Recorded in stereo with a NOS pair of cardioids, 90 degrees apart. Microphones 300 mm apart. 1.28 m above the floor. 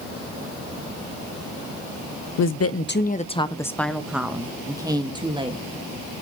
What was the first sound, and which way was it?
A woman speaking, 65° left.